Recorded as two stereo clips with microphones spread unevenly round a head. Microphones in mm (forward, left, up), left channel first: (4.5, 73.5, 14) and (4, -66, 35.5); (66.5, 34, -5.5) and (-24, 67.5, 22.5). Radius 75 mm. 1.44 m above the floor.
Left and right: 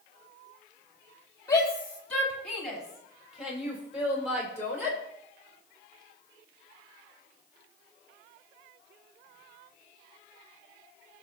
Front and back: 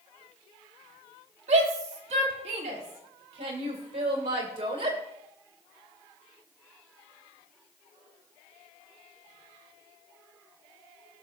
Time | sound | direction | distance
1.5 | a shout | 160° left | 4 m